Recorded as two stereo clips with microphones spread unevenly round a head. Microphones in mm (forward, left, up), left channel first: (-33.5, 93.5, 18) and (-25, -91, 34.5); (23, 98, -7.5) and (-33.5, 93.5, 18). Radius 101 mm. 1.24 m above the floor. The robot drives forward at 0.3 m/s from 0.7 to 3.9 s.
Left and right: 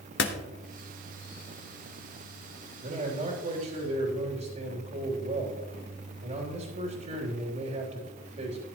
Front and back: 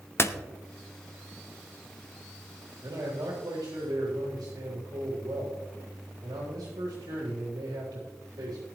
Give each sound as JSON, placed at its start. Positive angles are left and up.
{"t": 0.2, "sound": "a door slam", "azimuth_deg": 55, "distance_m": 1.0}
{"t": 2.8, "sound": "a man speaking", "azimuth_deg": -130, "distance_m": 3.0}